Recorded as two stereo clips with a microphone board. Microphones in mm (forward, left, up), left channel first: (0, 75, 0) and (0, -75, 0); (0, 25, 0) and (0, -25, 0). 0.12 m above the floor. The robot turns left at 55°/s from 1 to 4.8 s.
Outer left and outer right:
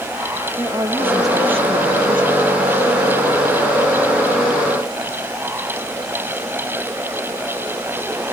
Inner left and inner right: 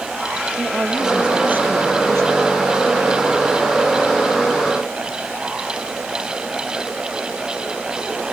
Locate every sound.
0.6 s a woman speaking: 10° right, 3.5 m; by 2.5 s 95° right, 3.5 m